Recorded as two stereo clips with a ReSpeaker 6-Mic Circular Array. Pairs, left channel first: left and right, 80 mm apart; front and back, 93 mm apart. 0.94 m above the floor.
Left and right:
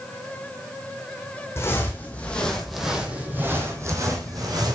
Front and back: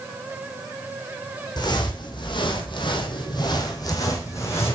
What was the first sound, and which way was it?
Footsteps, 35° left.